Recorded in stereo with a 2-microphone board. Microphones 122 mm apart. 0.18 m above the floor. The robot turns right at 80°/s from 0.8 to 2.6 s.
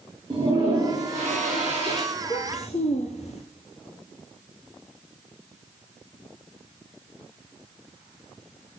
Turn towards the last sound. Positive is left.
turn(degrees=65)